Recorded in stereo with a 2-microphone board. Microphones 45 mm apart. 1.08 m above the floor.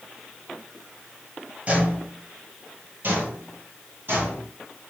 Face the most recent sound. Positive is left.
turn(degrees=-50)  # may be behind; listen again after turning